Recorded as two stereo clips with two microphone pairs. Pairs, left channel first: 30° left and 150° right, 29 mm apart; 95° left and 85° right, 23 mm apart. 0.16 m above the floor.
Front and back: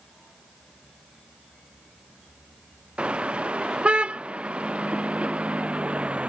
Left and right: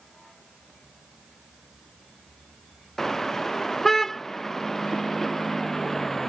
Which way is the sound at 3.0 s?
160° left.